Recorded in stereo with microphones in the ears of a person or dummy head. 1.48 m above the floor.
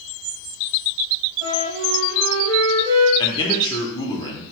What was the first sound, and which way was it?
A flute, 25° right (ahead or behind).